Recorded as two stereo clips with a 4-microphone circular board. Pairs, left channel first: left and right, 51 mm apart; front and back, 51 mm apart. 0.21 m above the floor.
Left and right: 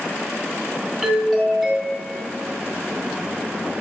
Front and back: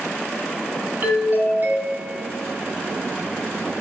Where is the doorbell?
175° right, 2 m.